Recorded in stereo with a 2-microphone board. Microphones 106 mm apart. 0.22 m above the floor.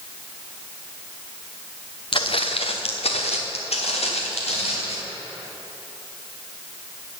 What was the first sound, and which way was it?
Footsteps, 55° left (ahead or behind).